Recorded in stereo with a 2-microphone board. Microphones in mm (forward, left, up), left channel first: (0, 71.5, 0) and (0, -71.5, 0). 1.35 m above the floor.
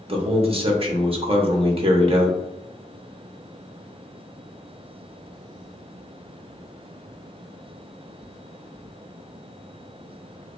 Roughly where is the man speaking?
Right.